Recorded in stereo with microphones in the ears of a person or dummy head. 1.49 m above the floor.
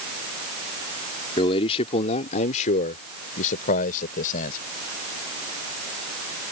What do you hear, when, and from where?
1.4 s a man speaking: 30° left (ahead or behind); by 4.6 s 50° left (ahead or behind)